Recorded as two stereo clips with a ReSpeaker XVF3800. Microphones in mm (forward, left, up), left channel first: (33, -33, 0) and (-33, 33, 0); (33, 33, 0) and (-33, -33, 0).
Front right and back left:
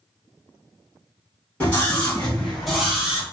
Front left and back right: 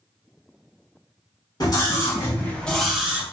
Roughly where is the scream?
Ahead left.